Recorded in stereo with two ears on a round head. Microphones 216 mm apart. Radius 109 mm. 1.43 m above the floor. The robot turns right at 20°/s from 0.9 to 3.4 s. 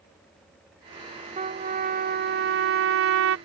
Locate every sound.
1.4 s a trumpet: 150° right; by 3.4 s 110° right